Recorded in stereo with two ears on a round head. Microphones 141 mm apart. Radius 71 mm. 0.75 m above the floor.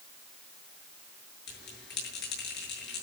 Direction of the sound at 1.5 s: 75° left (ahead or behind).